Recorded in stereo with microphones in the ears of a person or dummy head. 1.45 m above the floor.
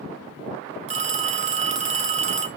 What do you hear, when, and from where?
0.9 s a phone ringing: 35° right (ahead or behind), 0.5 m